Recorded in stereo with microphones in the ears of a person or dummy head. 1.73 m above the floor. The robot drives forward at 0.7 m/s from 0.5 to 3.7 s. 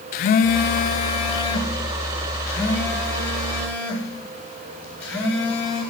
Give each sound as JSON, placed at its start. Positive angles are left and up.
{"t": 0.1, "sound": "a phone buzzing", "side_deg": 45, "distance_m": 0.6}